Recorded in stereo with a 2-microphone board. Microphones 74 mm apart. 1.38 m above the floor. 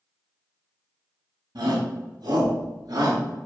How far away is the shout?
About 1.9 m.